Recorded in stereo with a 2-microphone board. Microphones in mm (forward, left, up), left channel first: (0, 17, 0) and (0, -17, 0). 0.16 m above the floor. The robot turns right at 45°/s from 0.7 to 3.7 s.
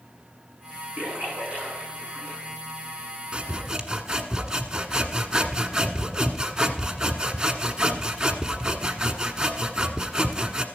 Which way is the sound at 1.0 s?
65° right (ahead or behind).